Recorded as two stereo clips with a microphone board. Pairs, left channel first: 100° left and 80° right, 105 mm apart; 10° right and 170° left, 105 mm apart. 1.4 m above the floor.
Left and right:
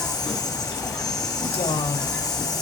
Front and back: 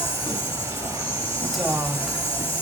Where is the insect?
15° left, 8.5 m.